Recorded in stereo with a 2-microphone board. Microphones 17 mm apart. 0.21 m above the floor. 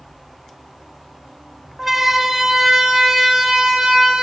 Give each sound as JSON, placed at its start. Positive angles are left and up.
{"t": 1.8, "sound": "a siren", "side_deg": -15, "distance_m": 2.0}